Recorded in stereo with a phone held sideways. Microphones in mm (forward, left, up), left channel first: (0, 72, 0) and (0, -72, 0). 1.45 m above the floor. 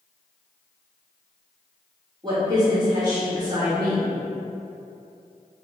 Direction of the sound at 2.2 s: 30° right (ahead or behind).